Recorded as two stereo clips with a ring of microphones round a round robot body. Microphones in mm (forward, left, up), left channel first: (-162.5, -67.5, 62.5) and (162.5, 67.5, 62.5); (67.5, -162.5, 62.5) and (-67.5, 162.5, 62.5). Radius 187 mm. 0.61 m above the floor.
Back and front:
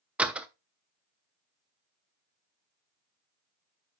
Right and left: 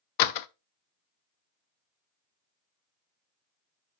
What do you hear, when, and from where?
0.2 s a door slam: 65° right, 0.6 m